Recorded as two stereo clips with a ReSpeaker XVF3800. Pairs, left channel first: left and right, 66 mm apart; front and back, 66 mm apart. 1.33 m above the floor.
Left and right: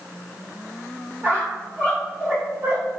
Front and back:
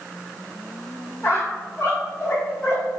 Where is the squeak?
50° right, 1.7 m.